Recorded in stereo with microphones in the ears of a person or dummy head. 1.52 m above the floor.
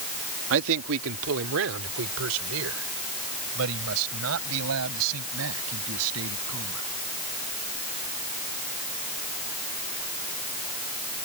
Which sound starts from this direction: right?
A man speaking, at 0.5 s.